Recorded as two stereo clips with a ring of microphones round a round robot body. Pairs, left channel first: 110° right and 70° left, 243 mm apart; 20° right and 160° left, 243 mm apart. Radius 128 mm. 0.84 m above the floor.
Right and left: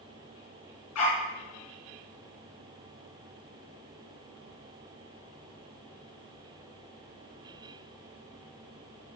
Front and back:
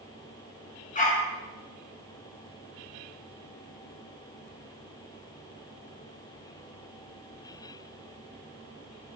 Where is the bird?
No bird in this recording.